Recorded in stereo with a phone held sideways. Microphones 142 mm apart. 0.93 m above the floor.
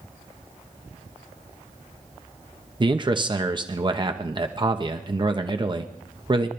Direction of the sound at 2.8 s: 35° right (ahead or behind).